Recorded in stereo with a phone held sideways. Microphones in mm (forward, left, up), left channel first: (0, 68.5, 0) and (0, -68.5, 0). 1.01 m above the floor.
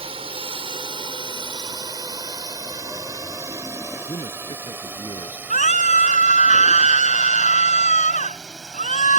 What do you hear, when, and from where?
0.0 s a drone: 40° right (ahead or behind); by 9.2 s centre (ahead or behind)
4.1 s a man speaking: 35° left (ahead or behind)
5.5 s a scream: 65° left (ahead or behind)